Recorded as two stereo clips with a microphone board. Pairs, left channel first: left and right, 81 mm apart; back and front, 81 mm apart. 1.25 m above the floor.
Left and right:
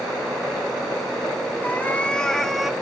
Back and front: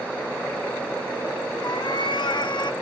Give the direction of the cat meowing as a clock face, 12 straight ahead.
7 o'clock.